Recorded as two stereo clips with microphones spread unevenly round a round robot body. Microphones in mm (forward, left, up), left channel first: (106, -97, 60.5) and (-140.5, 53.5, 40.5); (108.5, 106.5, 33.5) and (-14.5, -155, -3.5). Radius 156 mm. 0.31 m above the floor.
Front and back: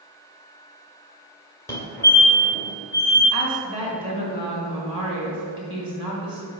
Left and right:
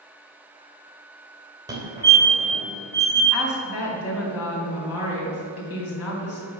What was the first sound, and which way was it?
A fire alarm, 105° right.